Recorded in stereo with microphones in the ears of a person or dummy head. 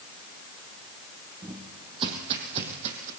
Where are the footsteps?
25° right (ahead or behind), 3 m; by 3.1 s 40° right (ahead or behind), 3 m.